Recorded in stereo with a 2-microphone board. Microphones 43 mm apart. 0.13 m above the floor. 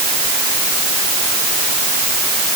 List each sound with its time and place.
Only background noise.